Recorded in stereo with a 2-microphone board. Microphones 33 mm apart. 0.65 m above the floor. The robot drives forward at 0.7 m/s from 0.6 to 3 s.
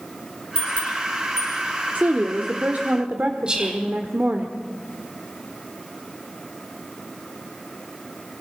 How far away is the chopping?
I don't hear chopping.